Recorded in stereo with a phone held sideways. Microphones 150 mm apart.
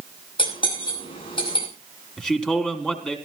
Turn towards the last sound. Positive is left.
turn(degrees=0)  # may be behind; listen again after turning